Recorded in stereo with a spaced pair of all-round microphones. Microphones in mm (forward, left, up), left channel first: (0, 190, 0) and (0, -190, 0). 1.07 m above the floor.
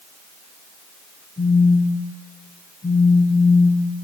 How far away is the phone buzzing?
About 3.5 m.